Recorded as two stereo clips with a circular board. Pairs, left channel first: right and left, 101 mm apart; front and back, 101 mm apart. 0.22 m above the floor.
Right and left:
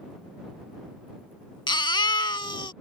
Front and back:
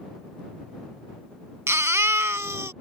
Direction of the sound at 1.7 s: 120° right.